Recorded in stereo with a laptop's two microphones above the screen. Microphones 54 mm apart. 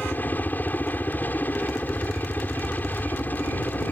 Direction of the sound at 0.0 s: 35° left (ahead or behind).